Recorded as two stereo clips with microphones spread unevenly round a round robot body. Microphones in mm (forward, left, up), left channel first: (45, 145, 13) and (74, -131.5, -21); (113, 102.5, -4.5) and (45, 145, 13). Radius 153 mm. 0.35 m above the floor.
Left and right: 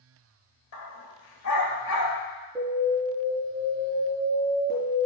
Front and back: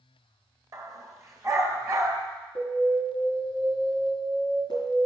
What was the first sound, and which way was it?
A dog barking, 105° left.